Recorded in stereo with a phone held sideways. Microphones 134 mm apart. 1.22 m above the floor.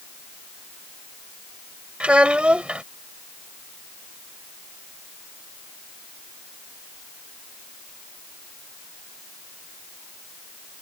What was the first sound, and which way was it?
A child speaking, 10° right (ahead or behind).